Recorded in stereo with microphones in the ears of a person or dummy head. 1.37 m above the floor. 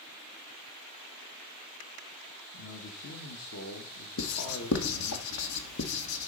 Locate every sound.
2.5 s a man speaking: 80° left, 2.0 m
4.2 s writing: 90° left, 1.6 m